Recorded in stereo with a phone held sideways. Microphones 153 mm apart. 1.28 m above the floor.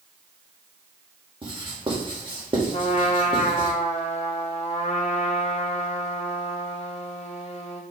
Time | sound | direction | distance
1.4 | writing | 35° right (ahead or behind) | 2.5 m
2.7 | a trumpet | 45° left (ahead or behind) | 1.6 m